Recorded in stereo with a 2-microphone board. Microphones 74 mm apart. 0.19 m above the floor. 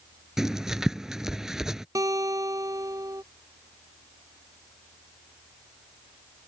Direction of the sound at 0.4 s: 5° right (ahead or behind).